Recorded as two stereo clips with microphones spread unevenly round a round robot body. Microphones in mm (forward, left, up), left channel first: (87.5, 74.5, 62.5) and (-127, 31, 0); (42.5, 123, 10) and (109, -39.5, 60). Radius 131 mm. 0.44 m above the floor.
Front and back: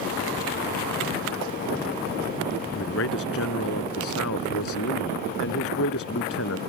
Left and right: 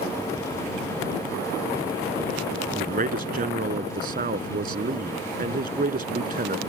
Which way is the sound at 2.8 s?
30° right.